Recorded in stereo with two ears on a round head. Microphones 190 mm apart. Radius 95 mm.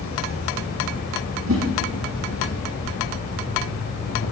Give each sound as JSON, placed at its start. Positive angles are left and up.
{"t": 0.0, "sound": "an insect", "side_deg": 70, "distance_m": 7.0}
{"t": 1.5, "sound": "a whoosh", "side_deg": -70, "distance_m": 5.0}